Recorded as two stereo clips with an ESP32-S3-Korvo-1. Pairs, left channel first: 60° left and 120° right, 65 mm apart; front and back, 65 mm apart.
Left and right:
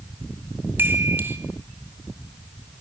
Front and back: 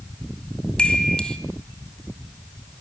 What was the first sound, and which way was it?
A chime, 75° right.